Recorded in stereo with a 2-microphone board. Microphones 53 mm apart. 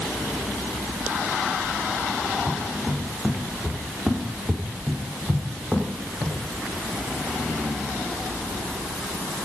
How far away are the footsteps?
About 5 m.